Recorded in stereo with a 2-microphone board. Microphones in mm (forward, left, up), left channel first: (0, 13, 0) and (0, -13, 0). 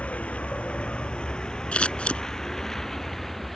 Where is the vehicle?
60° left (ahead or behind); by 3.6 s 5° left (ahead or behind).